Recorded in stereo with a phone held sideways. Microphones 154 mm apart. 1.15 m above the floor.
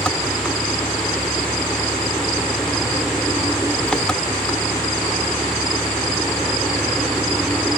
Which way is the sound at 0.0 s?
5° left (ahead or behind).